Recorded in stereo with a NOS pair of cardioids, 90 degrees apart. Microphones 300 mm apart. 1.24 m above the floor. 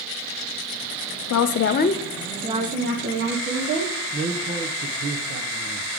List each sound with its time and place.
1.3 s a woman speaking: 65° left, 0.7 m; by 3.9 s 50° right, 1.7 m
4.1 s a man speaking: 35° right, 0.8 m